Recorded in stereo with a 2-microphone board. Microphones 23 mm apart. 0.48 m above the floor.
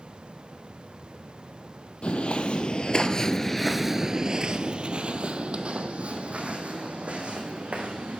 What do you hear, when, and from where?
2.0 s footsteps: 65° left (ahead or behind), 1.1 m; by 8.2 s 75° right (ahead or behind), 2.5 m